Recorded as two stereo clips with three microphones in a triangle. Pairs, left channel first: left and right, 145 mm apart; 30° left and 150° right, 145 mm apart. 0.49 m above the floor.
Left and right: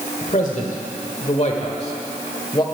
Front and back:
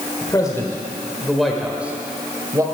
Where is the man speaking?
85° left, 1.4 m; by 2.6 s 145° left, 1.7 m.